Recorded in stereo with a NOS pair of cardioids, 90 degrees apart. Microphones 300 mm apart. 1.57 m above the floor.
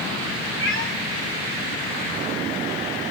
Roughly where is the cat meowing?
Ahead left.